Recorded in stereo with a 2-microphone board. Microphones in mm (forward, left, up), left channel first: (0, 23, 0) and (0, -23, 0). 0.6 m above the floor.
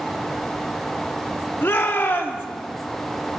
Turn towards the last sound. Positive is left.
turn(degrees=50)  # may be behind; listen again after turning